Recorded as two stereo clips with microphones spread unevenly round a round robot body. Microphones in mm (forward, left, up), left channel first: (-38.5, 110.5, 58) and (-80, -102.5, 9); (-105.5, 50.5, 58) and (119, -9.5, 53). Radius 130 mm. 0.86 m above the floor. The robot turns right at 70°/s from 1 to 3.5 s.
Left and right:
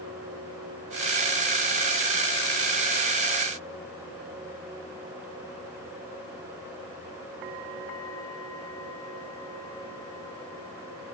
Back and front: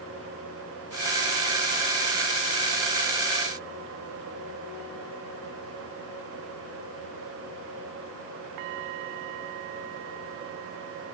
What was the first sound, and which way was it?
Only background noise.